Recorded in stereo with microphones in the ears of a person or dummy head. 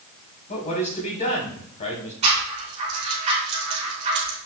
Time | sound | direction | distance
0.5 | a man speaking | 35° left (ahead or behind) | 3 m
2.2 | a rattle | 35° right (ahead or behind) | 4 m